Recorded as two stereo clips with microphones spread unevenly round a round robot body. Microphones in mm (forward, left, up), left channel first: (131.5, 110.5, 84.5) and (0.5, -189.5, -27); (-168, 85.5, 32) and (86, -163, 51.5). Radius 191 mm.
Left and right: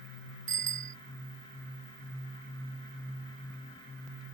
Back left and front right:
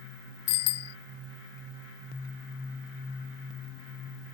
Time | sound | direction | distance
0.5 | a bicycle bell | straight behind | ?